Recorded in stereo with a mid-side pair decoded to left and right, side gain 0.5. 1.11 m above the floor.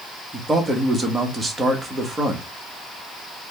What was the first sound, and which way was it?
A man speaking, 20° right.